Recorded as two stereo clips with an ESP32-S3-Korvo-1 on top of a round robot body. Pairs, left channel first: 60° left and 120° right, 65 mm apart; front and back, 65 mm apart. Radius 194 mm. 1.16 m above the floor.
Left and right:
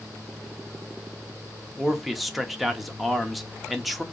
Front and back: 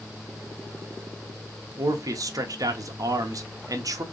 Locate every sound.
1.8 s a man speaking: 150° left, 0.9 m